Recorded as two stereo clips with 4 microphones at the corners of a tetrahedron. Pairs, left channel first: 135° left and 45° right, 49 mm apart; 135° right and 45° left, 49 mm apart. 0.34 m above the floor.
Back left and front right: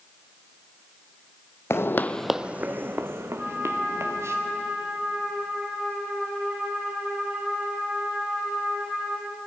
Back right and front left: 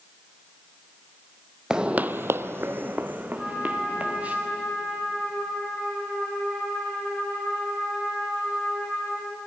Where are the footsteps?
115° left, 0.8 m; by 4.3 s 20° right, 3 m.